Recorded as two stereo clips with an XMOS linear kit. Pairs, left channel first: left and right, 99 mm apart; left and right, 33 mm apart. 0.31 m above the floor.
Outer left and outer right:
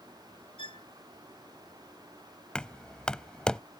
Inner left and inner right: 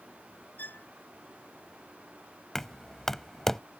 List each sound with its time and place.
0.6 s a violin: 60° left (ahead or behind)
2.5 s knocking: 10° left (ahead or behind)